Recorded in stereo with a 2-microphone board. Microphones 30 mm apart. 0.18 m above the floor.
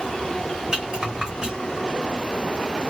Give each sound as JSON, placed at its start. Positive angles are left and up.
{"t": 0.7, "sound": "a rattle", "side_deg": -20, "distance_m": 1.7}